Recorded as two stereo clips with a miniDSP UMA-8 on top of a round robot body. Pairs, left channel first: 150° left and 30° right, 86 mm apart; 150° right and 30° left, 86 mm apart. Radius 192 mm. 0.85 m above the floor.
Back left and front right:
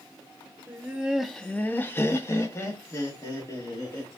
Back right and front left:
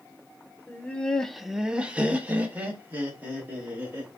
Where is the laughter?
85° right, 0.8 m; by 4.1 s 95° left, 2.5 m.